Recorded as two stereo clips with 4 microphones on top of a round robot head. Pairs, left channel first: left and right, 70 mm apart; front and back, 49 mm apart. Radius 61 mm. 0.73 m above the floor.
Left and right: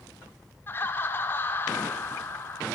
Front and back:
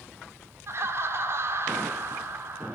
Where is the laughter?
150° left, 2.5 m.